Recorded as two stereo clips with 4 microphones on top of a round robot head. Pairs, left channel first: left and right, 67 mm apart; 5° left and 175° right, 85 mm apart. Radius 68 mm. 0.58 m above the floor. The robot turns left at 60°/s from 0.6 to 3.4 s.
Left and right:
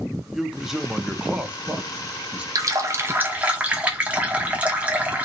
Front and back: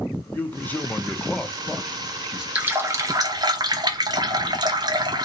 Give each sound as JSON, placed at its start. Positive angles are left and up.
{"t": 0.3, "sound": "a man speaking", "azimuth_deg": -15, "distance_m": 0.6}
{"t": 2.5, "sound": "a running tap", "azimuth_deg": -105, "distance_m": 0.7}